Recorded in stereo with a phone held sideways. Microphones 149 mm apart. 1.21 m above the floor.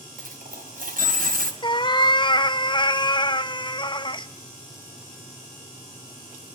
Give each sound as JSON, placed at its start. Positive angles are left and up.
{"t": 0.2, "sound": "a dropped coin", "side_deg": -70, "distance_m": 2.5}
{"t": 1.6, "sound": "a cat meowing", "side_deg": 30, "distance_m": 0.5}